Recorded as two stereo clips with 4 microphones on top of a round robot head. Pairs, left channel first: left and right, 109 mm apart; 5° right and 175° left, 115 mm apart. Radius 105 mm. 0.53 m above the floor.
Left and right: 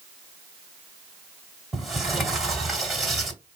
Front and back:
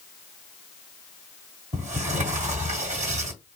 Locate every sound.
1.7 s a sliding door: straight behind, 1.8 m